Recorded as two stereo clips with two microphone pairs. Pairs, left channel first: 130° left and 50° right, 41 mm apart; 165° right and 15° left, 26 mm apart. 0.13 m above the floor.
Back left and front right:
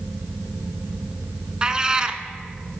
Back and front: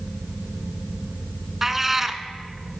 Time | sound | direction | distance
1.6 | a cat meowing | 35° right | 0.5 m